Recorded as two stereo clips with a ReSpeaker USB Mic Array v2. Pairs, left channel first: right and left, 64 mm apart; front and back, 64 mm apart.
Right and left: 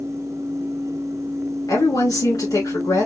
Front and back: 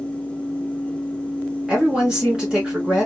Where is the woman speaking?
100° right, 2.5 m.